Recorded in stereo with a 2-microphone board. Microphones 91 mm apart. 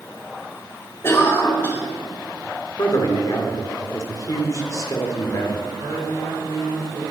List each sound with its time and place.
1.0 s a cough: 25° left (ahead or behind), 2.5 m
2.8 s a man speaking: 40° left (ahead or behind), 1.9 m
5.8 s a man speaking: 55° right (ahead or behind), 4.5 m